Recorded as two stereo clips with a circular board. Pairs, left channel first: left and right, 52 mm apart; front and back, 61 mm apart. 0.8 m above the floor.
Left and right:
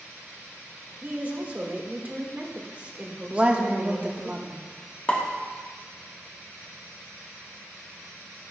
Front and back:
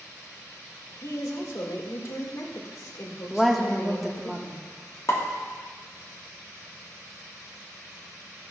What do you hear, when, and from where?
1.0 s a woman speaking: 25° right, 1.8 m
3.3 s a woman speaking: 90° right, 1.0 m
5.1 s a pop: 30° left, 1.3 m